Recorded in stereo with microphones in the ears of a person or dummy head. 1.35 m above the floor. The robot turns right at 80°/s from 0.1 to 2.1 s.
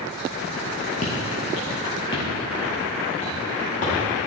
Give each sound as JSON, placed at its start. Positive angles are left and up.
{"t": 1.0, "sound": "footsteps", "side_deg": 25, "distance_m": 1.4}